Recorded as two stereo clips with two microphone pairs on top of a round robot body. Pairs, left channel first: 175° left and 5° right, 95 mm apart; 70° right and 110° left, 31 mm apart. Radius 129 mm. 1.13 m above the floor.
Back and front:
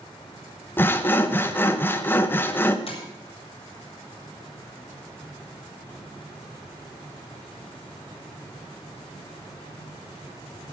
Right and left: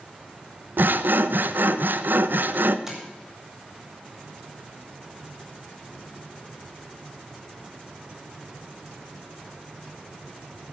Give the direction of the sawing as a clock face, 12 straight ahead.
8 o'clock.